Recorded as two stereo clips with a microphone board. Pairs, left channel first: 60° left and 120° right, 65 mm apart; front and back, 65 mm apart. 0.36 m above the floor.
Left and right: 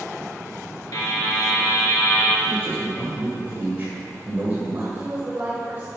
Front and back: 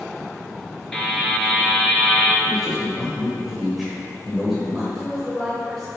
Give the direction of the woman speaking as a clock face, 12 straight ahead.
3 o'clock.